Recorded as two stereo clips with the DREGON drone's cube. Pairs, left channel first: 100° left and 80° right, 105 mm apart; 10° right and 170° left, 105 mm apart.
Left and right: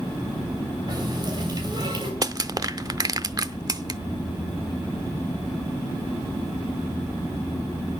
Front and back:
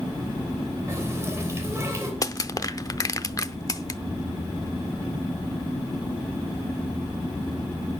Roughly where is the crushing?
Ahead right.